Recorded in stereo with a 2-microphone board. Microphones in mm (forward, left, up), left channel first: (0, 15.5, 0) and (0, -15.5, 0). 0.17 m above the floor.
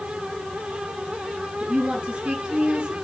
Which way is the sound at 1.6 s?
25° right (ahead or behind).